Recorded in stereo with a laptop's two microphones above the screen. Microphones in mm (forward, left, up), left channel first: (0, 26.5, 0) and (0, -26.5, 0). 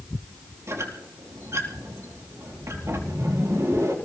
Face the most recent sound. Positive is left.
turn(degrees=-60)  # may be behind; listen again after turning